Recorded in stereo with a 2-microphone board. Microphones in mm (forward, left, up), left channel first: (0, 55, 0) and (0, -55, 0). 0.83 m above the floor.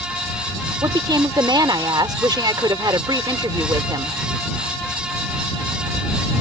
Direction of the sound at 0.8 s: 40° right (ahead or behind).